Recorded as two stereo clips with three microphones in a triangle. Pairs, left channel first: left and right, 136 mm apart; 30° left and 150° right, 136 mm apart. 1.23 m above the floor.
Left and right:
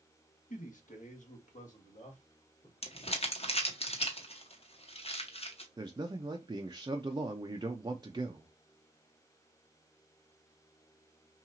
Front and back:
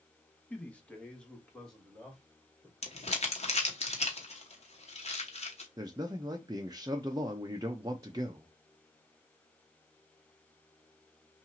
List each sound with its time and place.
0.5 s a man speaking: 110° left, 1.1 m; by 2.7 s 115° left, 2.5 m
2.8 s crumpling: 60° left, 1.0 m
5.8 s a man speaking: 115° right, 0.5 m